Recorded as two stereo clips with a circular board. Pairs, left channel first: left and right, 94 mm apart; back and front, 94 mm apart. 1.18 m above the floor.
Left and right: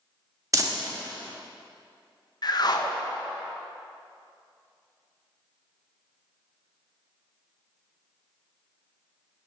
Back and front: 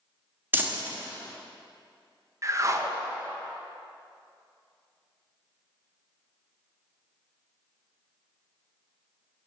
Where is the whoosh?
55° left, 0.6 m.